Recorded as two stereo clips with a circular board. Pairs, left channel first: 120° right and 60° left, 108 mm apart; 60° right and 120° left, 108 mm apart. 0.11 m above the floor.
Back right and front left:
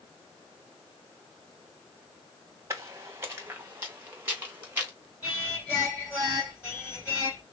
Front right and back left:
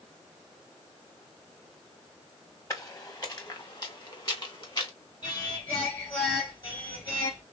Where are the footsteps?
Straight ahead, 1.4 m; by 4.9 s 15° right, 3 m.